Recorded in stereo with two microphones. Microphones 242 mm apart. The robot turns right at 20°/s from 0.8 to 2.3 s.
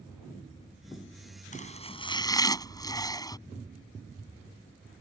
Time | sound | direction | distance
1.5 | chopping | 30° left (ahead or behind) | ?